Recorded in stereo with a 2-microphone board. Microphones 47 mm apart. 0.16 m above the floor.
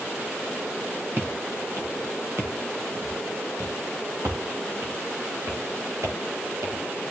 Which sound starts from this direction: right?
Footsteps, at 1.2 s.